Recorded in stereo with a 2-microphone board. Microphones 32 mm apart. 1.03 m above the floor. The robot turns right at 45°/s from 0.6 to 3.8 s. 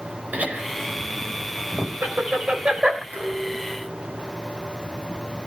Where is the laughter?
50° right (ahead or behind), 4.5 m; by 3.0 s 20° right (ahead or behind), 4.5 m.